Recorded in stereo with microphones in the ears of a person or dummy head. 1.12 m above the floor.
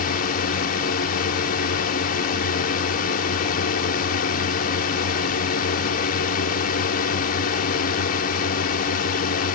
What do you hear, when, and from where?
0.0 s a drone: 50° left (ahead or behind)